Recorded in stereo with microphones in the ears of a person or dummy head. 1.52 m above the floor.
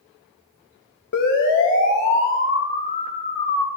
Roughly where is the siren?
Left.